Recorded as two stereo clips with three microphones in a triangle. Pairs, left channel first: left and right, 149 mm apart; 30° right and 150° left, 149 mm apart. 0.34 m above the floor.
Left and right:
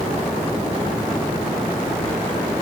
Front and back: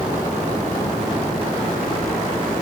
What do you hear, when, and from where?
Only background noise.